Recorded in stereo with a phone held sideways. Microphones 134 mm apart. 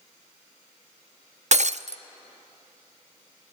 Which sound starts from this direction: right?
Breaking glass, at 1.5 s.